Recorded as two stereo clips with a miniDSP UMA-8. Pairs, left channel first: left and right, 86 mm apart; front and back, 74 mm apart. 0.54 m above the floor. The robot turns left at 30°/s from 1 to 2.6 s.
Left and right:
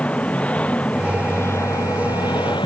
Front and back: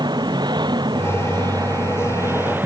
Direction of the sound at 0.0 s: 165° left.